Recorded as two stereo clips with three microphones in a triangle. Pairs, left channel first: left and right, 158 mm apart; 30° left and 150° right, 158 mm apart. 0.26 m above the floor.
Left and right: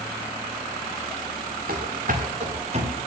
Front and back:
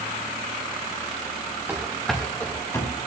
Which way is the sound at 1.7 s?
70° right.